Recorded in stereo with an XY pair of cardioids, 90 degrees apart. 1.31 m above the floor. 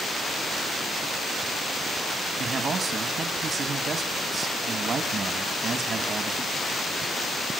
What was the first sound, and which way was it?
A man speaking, 60° right.